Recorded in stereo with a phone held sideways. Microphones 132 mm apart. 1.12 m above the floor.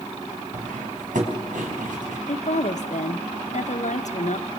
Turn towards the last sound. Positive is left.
turn(degrees=65)  # may be behind; listen again after turning